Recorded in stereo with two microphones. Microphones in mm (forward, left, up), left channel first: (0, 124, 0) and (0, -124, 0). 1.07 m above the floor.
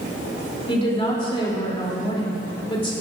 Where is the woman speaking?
20° left (ahead or behind), 3 m.